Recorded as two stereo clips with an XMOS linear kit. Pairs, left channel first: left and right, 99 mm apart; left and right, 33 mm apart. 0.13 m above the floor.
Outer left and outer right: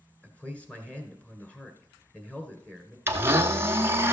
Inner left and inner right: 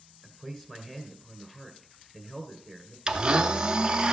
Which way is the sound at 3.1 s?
25° right (ahead or behind).